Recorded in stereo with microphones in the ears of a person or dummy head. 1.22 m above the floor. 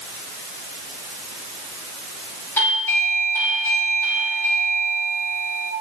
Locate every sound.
2.6 s a doorbell: 10° left (ahead or behind), 4.5 m